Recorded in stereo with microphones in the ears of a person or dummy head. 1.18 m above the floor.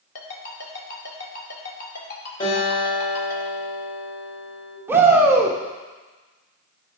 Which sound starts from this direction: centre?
A shout, at 4.9 s.